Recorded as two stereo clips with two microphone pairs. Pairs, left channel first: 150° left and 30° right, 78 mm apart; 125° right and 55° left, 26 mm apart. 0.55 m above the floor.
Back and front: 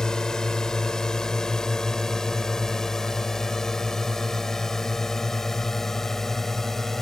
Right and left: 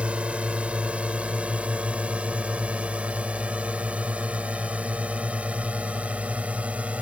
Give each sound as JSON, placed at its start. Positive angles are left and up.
{"t": 0.0, "sound": "a drone", "azimuth_deg": 70}